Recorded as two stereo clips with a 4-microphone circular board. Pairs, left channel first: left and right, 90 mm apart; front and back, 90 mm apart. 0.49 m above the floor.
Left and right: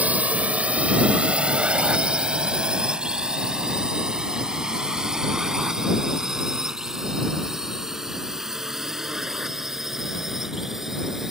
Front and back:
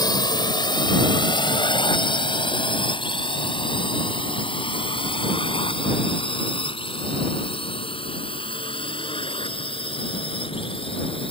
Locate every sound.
0.0 s a drone: 20° right; by 11.3 s 5° right